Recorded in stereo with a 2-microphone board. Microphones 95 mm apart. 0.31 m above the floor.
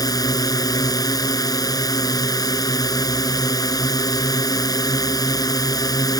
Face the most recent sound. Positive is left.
turn(degrees=40)  # may be behind; listen again after turning